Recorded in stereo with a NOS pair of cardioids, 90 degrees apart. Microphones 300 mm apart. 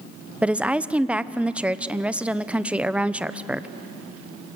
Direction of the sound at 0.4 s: 5° right.